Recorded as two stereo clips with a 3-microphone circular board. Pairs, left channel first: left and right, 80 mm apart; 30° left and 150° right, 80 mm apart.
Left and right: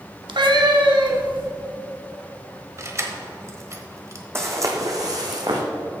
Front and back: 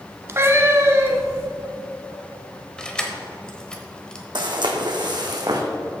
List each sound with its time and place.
0.3 s a cat meowing: 90° right, 0.8 m
2.8 s keys jangling: 50° right, 1.1 m
4.3 s footsteps: 145° right, 1.5 m; by 5.6 s 115° right, 1.6 m